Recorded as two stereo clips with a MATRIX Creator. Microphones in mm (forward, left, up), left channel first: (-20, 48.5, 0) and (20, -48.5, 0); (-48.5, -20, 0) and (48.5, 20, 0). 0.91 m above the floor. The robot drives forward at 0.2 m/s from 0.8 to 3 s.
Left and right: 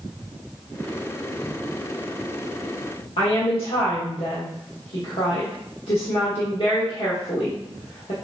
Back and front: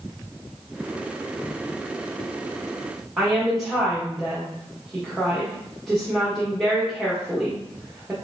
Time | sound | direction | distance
3.2 | a woman speaking | 115° left | 1.1 m